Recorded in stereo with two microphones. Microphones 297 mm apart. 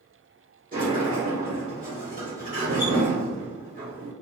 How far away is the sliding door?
About 1.3 m.